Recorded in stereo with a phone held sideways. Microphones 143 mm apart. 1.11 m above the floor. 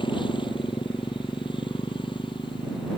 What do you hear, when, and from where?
0.0 s a motorcycle: 35° left (ahead or behind)